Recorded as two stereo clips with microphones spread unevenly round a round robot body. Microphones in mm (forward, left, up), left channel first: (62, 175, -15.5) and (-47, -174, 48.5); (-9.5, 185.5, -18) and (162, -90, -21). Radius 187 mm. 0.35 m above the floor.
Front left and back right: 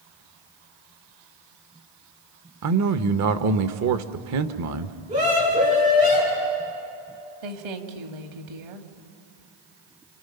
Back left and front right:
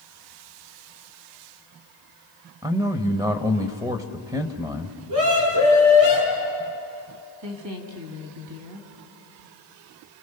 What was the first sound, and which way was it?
A man speaking, 125° right.